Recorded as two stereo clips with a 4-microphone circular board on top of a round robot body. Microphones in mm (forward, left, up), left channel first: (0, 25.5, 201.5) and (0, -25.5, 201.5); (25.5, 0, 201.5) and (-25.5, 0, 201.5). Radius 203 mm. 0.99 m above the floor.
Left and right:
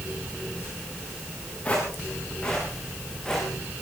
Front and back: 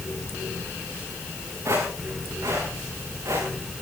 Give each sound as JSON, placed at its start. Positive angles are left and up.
{"t": 1.6, "sound": "footsteps", "azimuth_deg": 155, "distance_m": 6.0}